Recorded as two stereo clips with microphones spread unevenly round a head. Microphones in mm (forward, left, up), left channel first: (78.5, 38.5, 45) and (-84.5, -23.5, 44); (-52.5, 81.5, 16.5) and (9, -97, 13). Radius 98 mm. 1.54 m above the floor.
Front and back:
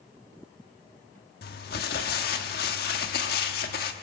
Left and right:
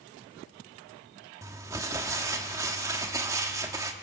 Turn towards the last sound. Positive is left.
turn(degrees=0)